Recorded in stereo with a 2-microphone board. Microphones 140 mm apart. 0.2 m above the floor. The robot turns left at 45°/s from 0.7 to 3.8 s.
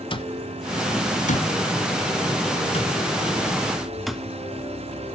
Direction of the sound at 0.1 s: 40° left (ahead or behind).